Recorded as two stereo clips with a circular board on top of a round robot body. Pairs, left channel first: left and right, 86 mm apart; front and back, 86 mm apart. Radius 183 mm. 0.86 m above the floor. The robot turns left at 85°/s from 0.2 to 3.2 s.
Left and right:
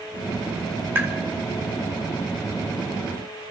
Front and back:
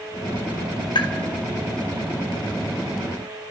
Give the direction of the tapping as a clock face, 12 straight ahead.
1 o'clock.